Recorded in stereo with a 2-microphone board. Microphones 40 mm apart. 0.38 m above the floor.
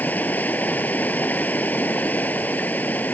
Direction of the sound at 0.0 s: 50° left (ahead or behind).